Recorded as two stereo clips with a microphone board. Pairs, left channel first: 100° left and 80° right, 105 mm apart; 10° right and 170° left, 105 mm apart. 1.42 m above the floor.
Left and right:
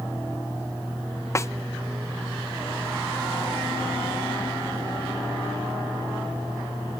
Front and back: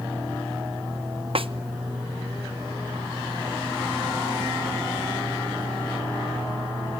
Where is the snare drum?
160° left, 0.8 m.